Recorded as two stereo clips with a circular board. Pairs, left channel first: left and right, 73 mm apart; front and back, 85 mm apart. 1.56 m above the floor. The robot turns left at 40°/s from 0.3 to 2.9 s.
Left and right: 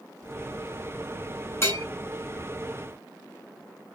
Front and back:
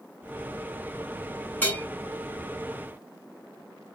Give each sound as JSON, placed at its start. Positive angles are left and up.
{"t": 1.6, "sound": "a bell", "azimuth_deg": 65, "distance_m": 1.5}